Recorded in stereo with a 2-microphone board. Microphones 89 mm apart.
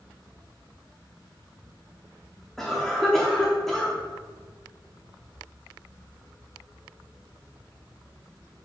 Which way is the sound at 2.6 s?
5° left (ahead or behind).